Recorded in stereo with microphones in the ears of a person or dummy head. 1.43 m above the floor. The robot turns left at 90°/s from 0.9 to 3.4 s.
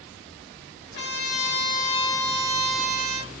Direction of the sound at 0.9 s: 120° left.